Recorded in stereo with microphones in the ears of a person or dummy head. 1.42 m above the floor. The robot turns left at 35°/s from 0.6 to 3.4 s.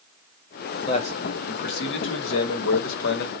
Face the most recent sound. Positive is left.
turn(degrees=55)